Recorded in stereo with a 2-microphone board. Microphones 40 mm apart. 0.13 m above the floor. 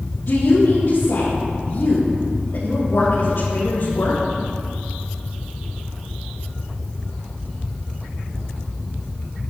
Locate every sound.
0.3 s a woman speaking: 50° left (ahead or behind), 3.5 m